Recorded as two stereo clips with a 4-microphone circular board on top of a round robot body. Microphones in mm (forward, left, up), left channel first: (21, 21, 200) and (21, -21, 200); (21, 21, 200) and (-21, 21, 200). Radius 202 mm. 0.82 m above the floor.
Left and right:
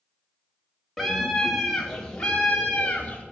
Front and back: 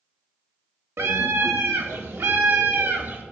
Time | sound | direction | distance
1.0 | a scream | straight behind | 2.5 m